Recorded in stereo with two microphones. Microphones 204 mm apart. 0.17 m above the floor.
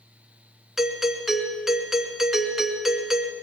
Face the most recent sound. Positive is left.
turn(degrees=0)  # may be behind; listen again after turning